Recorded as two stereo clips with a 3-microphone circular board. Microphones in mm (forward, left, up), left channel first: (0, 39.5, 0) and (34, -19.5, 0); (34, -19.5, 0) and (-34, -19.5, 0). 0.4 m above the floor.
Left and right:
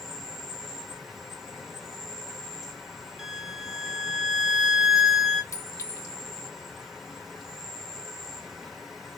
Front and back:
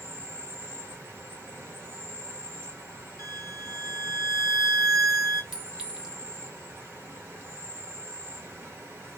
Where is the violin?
145° right, 0.6 m.